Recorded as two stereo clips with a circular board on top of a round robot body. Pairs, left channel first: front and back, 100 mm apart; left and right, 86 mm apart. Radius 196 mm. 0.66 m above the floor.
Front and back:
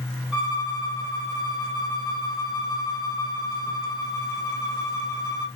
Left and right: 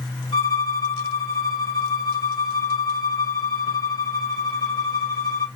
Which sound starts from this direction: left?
A violin, at 0.3 s.